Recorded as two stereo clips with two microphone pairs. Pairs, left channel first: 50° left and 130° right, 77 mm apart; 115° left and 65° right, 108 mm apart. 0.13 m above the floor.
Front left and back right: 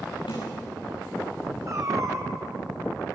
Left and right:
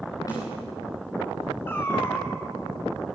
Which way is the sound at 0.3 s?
60° left.